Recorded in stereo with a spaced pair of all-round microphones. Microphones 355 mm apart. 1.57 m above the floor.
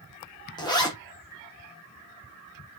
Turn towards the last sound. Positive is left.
turn(degrees=10)  # may be behind; listen again after turning